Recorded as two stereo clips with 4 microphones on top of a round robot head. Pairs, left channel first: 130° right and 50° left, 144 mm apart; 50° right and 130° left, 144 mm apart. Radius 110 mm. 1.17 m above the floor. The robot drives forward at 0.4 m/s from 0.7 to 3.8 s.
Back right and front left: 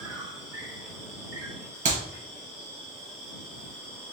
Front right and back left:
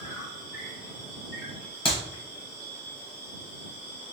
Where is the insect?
40° right, 2.0 m; by 4.1 s 85° right, 1.4 m.